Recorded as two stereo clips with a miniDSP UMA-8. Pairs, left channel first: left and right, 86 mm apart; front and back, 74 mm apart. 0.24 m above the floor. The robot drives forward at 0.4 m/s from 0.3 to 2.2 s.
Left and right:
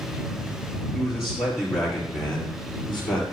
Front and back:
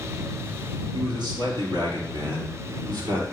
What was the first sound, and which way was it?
A man speaking, 175° right.